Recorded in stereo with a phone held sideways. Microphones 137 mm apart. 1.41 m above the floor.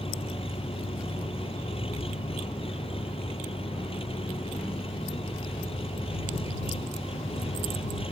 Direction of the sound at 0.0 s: 45° left (ahead or behind).